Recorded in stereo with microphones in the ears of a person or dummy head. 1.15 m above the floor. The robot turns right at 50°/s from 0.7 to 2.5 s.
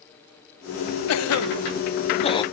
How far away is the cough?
About 0.6 m.